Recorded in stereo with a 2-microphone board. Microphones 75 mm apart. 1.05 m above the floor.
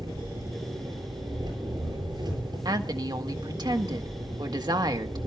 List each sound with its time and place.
0.0 s an engine running: 75° right (ahead or behind), 8 m
2.6 s a woman speaking: 70° right (ahead or behind), 1.6 m